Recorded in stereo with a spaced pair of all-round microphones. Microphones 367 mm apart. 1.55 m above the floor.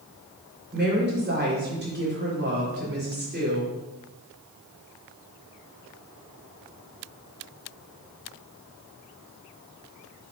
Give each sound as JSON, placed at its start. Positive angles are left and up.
{"t": 0.7, "sound": "a woman speaking", "side_deg": -30, "distance_m": 4.5}